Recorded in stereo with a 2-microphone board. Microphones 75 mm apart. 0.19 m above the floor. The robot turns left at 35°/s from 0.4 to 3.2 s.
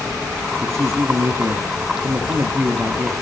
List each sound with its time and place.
0.6 s a man speaking: 75° right, 1.3 m; by 3.1 s 165° right, 1.3 m